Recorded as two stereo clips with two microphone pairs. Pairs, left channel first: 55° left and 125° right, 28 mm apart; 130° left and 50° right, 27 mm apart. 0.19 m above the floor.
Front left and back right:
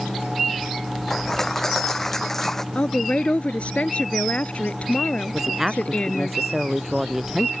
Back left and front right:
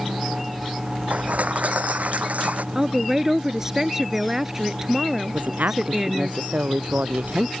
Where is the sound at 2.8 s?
25° left.